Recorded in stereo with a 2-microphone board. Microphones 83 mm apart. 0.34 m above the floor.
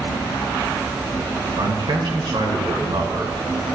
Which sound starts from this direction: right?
A man speaking, at 1.6 s.